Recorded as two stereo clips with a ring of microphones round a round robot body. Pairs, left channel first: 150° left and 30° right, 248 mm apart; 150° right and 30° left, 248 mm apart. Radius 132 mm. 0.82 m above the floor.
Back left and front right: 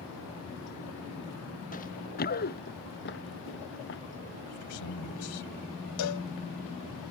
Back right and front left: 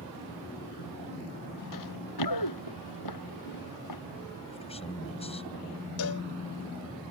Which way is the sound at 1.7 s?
150° right.